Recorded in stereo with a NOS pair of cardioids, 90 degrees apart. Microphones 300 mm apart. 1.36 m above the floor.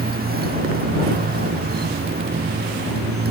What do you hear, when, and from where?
0.0 s a motorcycle: 30° right